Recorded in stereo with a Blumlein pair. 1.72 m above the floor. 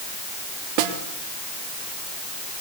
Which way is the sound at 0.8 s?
45° right.